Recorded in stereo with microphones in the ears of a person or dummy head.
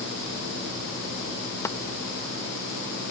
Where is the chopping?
15° left (ahead or behind).